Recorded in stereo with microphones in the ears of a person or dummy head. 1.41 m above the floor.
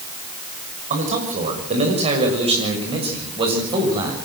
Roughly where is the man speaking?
Right.